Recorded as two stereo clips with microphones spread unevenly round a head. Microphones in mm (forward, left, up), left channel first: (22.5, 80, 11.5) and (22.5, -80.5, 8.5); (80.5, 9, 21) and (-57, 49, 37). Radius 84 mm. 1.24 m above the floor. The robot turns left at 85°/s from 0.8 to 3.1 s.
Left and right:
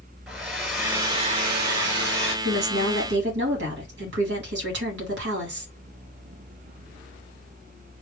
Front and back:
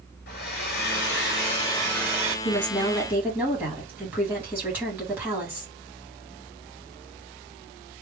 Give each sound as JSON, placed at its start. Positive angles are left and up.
{"t": 0.3, "sound": "a hair dryer", "azimuth_deg": 0, "distance_m": 1.7}
{"t": 2.5, "sound": "a woman speaking", "azimuth_deg": -60, "distance_m": 2.5}